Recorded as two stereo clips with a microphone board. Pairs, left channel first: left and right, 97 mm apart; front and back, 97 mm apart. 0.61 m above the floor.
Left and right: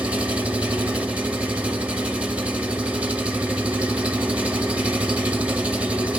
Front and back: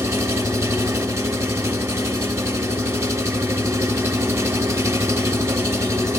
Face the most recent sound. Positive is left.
turn(degrees=-155)